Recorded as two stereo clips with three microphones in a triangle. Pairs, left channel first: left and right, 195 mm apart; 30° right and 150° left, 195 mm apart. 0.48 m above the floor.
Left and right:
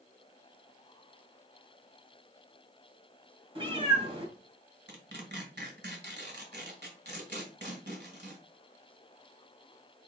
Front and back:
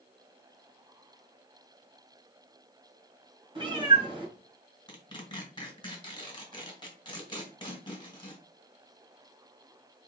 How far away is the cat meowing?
About 1.8 m.